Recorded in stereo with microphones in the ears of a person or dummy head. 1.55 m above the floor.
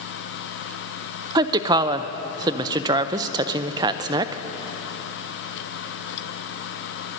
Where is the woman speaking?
20° right (ahead or behind), 0.5 m.